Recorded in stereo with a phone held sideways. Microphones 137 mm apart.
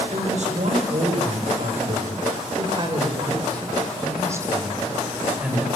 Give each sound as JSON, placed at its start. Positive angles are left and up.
{"t": 0.1, "sound": "a woman speaking", "side_deg": -65, "distance_m": 7.0}